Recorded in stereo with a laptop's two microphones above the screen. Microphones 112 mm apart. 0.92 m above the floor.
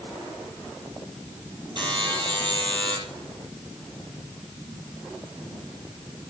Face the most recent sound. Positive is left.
turn(degrees=-45)  # may be behind; listen again after turning